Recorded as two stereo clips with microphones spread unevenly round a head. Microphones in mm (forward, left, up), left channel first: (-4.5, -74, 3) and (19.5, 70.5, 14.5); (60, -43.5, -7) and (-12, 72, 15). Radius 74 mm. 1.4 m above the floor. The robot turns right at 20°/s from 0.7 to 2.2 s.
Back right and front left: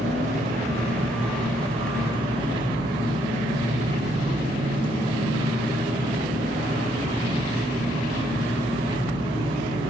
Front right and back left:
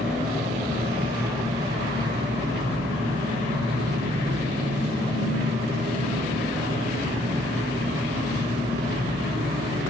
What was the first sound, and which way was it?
An engine running, 110° left.